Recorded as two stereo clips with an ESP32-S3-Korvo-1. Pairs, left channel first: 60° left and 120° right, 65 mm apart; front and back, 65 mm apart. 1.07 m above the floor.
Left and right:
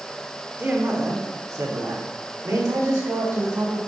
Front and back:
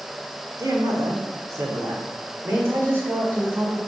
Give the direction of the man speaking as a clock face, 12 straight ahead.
6 o'clock.